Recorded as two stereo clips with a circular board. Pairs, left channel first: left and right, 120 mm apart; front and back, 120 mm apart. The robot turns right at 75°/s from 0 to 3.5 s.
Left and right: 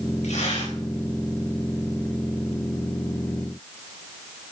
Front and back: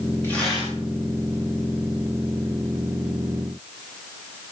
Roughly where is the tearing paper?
Left.